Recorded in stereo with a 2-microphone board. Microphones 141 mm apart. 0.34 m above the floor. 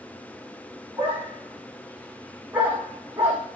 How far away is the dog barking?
About 8 m.